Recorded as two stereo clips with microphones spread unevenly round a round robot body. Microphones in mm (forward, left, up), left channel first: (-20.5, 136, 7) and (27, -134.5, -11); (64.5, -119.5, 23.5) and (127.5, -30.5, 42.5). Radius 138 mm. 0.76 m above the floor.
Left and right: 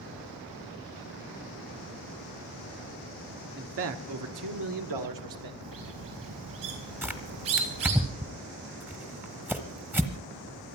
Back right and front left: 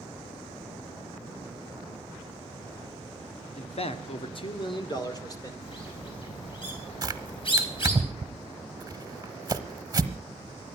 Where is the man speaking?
130° right, 1.3 m; by 5.5 s 70° right, 2.5 m.